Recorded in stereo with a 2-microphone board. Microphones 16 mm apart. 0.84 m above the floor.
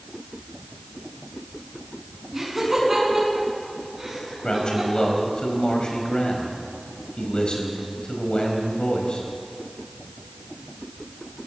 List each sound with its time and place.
2.3 s laughter: 20° right (ahead or behind), 9 m
4.4 s a man speaking: 75° left (ahead or behind), 4.5 m